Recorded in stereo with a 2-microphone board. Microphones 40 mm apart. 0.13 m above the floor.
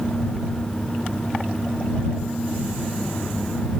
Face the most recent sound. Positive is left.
No sound to turn to.